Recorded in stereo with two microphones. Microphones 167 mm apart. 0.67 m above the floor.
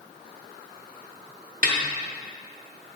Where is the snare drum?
55° right (ahead or behind), 1.0 m.